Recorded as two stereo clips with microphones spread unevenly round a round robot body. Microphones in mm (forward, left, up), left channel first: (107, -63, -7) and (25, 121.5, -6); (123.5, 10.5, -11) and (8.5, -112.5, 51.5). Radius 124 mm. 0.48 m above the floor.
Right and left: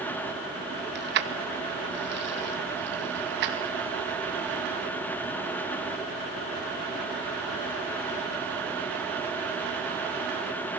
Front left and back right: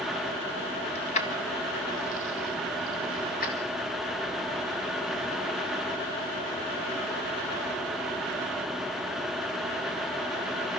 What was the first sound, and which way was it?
Keys jangling, 85° left.